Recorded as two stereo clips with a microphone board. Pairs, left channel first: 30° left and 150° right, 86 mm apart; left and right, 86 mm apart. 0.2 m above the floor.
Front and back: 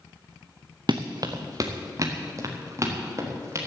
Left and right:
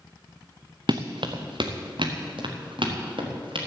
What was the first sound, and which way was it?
Running footsteps, 115° right.